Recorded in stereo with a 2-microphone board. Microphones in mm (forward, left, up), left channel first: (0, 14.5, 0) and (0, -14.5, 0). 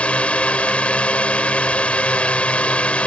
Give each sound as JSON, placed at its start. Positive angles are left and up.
{"t": 0.0, "sound": "a drone", "side_deg": 45}